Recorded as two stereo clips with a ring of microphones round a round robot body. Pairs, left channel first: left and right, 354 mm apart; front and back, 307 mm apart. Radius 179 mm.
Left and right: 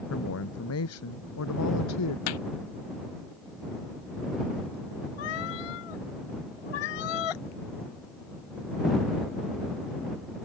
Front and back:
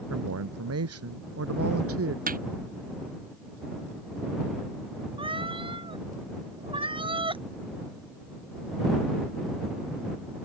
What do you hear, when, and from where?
0.1 s a woman speaking: 140° left; by 2.2 s 135° left
2.3 s hammering: 115° left
5.2 s a cat meowing: 105° left